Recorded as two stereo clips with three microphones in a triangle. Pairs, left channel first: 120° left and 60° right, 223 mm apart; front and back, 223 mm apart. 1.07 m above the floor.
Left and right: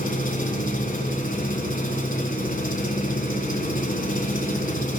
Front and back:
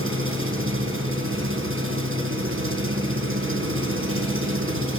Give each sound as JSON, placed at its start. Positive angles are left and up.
{"t": 0.0, "sound": "an engine running", "azimuth_deg": 170, "distance_m": 3.5}